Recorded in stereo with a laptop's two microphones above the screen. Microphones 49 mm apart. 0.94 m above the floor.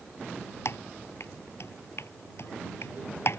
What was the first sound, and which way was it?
Typing on a keyboard, 60° left (ahead or behind).